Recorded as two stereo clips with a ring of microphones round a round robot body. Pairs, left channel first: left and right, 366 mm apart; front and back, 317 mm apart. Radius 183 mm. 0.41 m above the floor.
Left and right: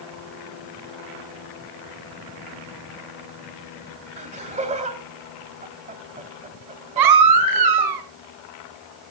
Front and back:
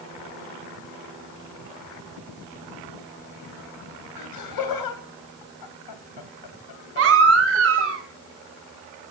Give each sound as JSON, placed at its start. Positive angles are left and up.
{"t": 4.2, "sound": "laughter", "azimuth_deg": -20, "distance_m": 2.5}
{"t": 7.0, "sound": "a baby crying", "azimuth_deg": -125, "distance_m": 2.5}